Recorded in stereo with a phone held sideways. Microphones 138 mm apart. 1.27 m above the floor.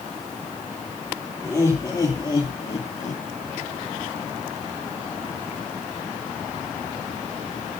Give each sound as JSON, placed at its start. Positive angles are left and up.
{"t": 1.4, "sound": "laughter", "side_deg": 20, "distance_m": 3.0}